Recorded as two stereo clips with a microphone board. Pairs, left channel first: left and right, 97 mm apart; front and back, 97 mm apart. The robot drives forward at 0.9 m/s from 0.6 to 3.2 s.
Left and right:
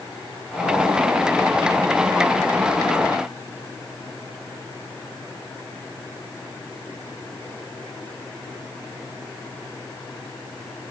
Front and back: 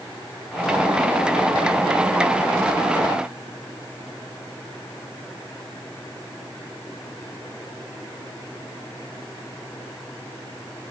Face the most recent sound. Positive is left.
No sound to turn to.